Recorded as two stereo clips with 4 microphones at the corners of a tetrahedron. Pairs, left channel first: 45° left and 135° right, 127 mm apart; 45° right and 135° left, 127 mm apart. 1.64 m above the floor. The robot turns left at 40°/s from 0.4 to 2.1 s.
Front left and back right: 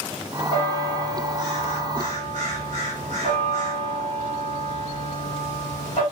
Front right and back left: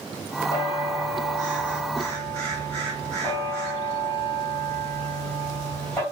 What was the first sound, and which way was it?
A bell, 100° left.